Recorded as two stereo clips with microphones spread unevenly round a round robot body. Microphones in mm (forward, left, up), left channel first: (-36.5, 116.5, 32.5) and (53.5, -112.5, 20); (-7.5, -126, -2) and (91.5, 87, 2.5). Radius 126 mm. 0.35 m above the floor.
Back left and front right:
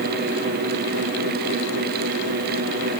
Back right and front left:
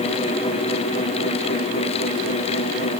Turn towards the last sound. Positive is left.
No sound to turn to.